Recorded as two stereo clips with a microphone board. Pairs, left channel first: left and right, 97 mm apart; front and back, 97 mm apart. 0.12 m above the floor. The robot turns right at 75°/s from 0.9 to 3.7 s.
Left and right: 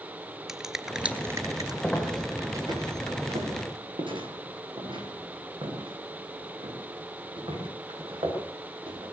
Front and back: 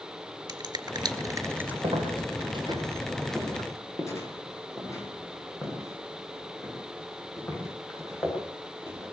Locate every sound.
0.5 s a finger snap: 170° right, 2 m; by 1.7 s 110° right, 2 m
1.8 s footsteps: 160° left, 7 m; by 9.0 s 60° right, 13 m